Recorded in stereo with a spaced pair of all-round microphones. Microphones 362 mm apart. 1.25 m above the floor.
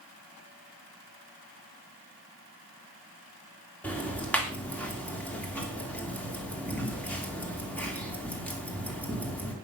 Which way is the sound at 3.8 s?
5° left (ahead or behind).